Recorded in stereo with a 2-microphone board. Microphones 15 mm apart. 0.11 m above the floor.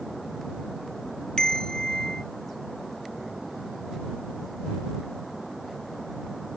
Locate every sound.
1.4 s a bell: 55° left (ahead or behind)